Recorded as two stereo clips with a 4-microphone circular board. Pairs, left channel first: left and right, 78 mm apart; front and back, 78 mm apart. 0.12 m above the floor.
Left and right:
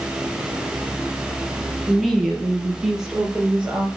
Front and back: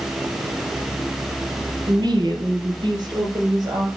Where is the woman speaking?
Straight behind, 3 m; by 3.9 s 170° right, 5 m.